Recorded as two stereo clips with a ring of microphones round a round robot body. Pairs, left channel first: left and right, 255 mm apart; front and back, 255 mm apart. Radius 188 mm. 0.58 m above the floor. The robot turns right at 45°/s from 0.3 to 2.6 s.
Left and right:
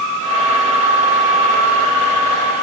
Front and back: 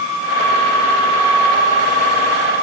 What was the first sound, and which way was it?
Only background noise.